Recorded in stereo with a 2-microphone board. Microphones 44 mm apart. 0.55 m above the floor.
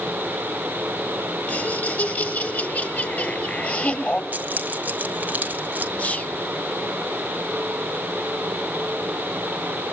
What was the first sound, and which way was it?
Laughter, 45° left (ahead or behind).